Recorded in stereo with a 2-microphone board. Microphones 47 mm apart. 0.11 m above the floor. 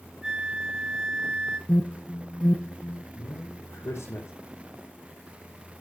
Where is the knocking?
I don't hear knocking.